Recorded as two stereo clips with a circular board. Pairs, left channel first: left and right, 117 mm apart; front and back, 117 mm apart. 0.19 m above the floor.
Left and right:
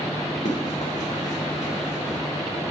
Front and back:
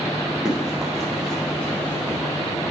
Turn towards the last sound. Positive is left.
turn(degrees=70)